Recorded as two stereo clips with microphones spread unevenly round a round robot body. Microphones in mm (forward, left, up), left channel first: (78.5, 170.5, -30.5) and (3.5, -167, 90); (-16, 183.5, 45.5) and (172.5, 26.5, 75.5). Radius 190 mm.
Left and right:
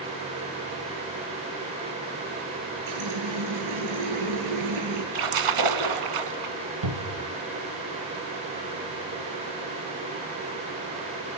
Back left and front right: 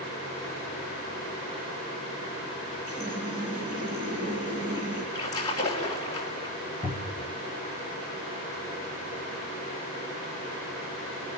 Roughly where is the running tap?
Behind right.